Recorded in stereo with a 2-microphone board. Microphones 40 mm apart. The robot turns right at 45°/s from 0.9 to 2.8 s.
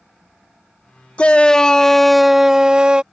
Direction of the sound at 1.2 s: 140° left.